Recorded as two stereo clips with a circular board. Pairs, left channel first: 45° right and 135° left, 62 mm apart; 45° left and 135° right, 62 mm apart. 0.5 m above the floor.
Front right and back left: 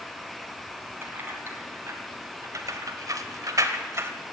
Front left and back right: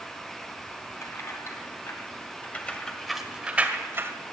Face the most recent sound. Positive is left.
turn(degrees=180)